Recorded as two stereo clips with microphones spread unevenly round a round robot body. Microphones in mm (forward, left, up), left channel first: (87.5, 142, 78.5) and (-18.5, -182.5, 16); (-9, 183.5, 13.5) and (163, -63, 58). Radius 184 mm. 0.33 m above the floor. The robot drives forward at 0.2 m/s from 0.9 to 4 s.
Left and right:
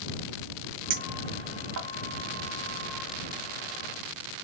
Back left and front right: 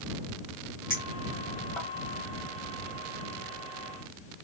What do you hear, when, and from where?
0.9 s a clink: 145° right, 1.0 m; by 1.9 s 150° right, 1.2 m